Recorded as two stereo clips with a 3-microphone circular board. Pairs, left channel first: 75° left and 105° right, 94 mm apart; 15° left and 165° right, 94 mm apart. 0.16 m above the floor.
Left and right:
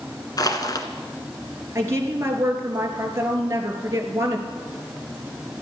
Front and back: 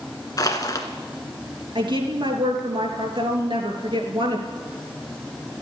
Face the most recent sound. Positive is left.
turn(degrees=-160)